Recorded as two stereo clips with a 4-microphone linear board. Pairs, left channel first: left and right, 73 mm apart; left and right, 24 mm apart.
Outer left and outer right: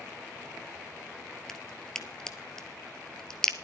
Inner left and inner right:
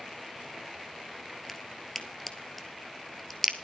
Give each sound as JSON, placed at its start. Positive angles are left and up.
{"t": 1.5, "sound": "a crack", "side_deg": 10, "distance_m": 1.3}